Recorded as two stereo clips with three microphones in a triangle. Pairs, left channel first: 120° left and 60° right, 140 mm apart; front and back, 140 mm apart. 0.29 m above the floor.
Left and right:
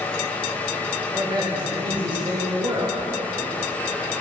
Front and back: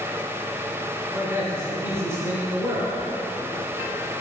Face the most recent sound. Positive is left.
turn(degrees=-110)